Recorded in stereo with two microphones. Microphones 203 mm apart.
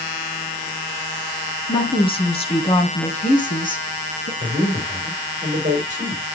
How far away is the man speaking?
About 4 m.